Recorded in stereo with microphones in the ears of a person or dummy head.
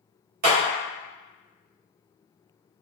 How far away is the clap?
About 1.5 m.